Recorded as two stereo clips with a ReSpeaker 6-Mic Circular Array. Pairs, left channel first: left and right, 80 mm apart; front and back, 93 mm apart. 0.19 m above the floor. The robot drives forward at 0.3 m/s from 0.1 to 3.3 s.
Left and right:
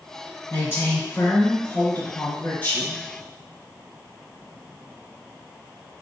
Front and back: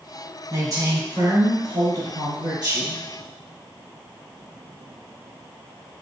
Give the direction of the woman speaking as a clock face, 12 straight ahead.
7 o'clock.